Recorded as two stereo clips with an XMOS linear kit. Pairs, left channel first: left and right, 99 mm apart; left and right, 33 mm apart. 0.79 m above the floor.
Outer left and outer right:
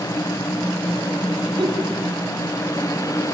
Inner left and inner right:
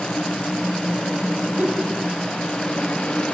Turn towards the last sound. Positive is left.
turn(degrees=-50)  # may be behind; listen again after turning